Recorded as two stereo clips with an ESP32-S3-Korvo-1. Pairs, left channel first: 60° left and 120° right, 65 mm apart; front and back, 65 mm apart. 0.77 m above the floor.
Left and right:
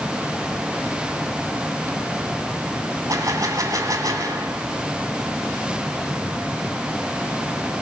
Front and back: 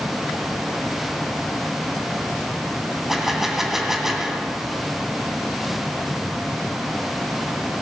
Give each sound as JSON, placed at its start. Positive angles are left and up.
{"t": 3.1, "sound": "a gunshot", "azimuth_deg": -95, "distance_m": 2.0}